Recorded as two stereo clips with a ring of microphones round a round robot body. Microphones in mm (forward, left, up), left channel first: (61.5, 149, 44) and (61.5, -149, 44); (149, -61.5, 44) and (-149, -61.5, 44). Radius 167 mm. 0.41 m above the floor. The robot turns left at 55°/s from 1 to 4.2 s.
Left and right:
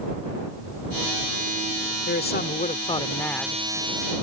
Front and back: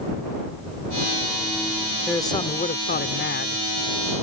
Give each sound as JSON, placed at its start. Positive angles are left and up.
{"t": 2.1, "sound": "a man speaking", "azimuth_deg": 80}